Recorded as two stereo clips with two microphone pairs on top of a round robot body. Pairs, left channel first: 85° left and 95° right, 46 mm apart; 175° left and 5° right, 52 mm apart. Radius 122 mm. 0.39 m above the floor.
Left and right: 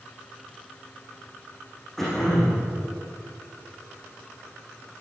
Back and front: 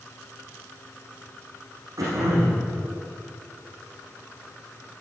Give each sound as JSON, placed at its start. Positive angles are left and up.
{"t": 2.0, "sound": "throat clearing", "azimuth_deg": 5, "distance_m": 9.0}